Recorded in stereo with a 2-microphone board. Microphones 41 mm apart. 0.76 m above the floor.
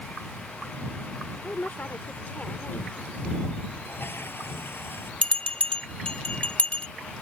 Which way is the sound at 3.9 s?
65° left (ahead or behind).